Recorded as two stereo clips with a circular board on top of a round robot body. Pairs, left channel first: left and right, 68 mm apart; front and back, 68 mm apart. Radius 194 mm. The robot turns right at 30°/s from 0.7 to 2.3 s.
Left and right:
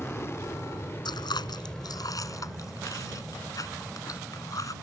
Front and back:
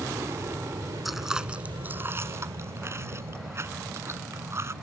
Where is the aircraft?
140° left; by 4.8 s straight behind.